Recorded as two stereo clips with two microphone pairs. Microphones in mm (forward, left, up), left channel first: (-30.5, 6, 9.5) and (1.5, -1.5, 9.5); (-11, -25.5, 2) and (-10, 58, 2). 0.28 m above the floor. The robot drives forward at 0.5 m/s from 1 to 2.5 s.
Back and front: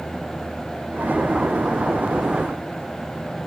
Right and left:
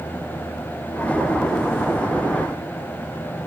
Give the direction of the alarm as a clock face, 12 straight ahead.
I don't hear an alarm.